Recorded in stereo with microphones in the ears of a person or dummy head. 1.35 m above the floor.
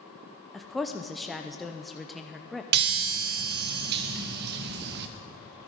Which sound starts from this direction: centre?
A woman speaking, at 0.5 s.